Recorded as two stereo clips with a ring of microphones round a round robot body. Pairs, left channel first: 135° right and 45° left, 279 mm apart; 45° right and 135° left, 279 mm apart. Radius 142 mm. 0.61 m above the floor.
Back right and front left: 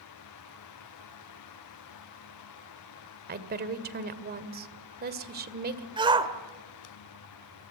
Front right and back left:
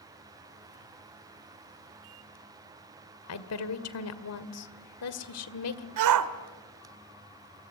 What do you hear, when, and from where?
3.3 s a woman speaking: 10° right, 1.9 m
6.0 s a shout: 120° left, 1.8 m